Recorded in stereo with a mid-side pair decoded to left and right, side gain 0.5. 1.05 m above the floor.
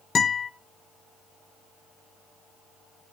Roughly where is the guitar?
Ahead left.